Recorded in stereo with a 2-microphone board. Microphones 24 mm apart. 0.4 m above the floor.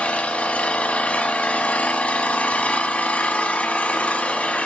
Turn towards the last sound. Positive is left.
turn(degrees=80)